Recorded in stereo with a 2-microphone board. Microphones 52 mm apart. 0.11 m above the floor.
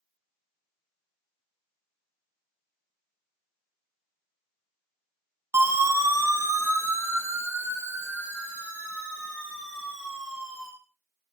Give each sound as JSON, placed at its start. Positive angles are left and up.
{"t": 5.5, "sound": "a siren", "side_deg": -50, "distance_m": 5.5}